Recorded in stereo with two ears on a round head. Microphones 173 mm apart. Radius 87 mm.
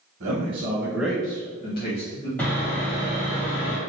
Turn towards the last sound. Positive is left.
turn(degrees=5)  # may be behind; listen again after turning